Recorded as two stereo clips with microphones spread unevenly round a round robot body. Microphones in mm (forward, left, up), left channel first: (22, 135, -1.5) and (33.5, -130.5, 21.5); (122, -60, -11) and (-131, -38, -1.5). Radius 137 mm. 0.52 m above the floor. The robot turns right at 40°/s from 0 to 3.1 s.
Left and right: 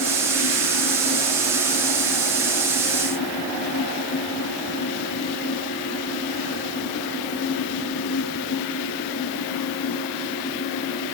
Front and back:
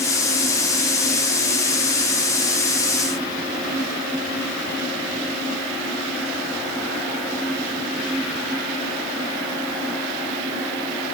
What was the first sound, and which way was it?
Only background noise.